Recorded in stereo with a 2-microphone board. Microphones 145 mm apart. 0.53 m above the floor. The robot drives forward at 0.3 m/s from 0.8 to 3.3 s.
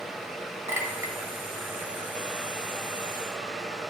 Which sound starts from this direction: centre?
A clink, at 0.7 s.